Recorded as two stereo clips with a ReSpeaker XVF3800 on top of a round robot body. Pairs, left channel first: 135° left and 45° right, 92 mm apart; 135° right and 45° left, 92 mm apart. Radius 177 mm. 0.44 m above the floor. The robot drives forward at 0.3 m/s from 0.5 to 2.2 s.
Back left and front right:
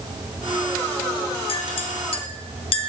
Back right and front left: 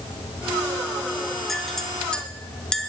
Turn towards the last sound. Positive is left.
turn(degrees=145)